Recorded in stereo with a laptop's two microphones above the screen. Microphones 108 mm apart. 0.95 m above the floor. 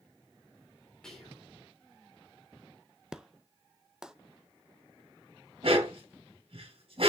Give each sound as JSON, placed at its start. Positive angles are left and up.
{"t": 1.0, "sound": "whispering", "side_deg": 5, "distance_m": 3.0}
{"t": 3.1, "sound": "an explosion", "side_deg": -5, "distance_m": 0.5}
{"t": 5.6, "sound": "a dog barking", "side_deg": -60, "distance_m": 2.5}